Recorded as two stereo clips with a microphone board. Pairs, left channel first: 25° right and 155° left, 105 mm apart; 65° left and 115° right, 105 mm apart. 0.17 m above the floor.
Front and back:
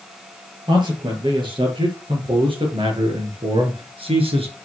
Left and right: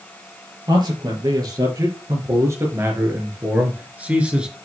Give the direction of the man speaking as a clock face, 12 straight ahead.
5 o'clock.